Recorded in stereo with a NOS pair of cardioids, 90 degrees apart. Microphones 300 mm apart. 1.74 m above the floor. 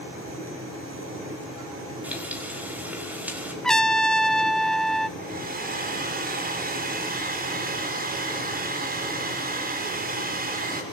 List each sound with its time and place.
2.0 s frying: 5° right, 5 m
3.6 s a trumpet: straight ahead, 1.2 m
5.2 s a hair dryer: 30° right, 5 m